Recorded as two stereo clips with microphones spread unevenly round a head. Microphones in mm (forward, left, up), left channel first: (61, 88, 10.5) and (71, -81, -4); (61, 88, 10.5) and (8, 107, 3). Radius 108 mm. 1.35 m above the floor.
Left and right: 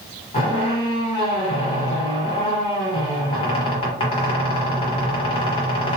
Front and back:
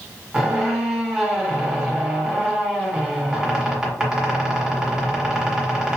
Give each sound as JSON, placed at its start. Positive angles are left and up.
{"t": 0.3, "sound": "a squeak", "azimuth_deg": 80, "distance_m": 1.5}